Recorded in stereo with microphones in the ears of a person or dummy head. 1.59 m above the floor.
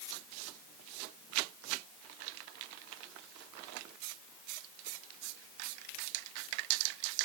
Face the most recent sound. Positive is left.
No sound to turn to.